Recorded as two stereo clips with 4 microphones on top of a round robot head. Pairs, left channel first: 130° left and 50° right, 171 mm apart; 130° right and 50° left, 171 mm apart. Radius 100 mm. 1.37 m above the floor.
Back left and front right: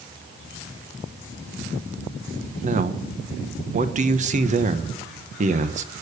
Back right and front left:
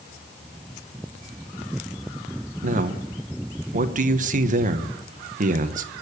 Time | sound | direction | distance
2.6 | a man speaking | straight ahead | 1.2 m